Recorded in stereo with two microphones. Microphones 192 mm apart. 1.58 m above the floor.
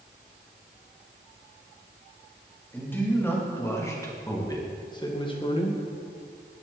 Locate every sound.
2.7 s a man speaking: 10° left (ahead or behind), 3 m; by 5.8 s 35° left (ahead or behind), 1.4 m